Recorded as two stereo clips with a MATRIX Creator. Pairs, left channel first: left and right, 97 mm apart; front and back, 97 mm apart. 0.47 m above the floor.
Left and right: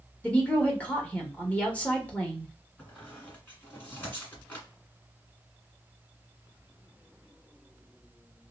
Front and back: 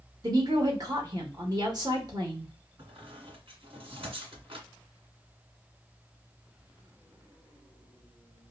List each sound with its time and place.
0.2 s a woman speaking: 160° left, 1.1 m
2.8 s a squeak: 165° left, 1.6 m